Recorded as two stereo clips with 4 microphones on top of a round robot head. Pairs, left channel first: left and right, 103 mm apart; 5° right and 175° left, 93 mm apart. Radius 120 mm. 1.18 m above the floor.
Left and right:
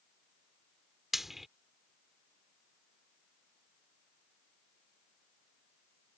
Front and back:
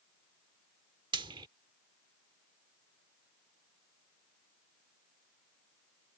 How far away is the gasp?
I don't hear a gasp.